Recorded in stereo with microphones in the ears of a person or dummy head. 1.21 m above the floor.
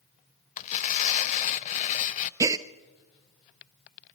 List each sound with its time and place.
0.6 s tearing paper: 35° left (ahead or behind), 0.5 m
2.4 s a gasp: 15° right (ahead or behind), 0.6 m